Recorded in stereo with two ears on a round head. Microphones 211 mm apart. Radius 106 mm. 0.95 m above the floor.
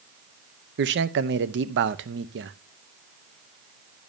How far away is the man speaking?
About 0.7 m.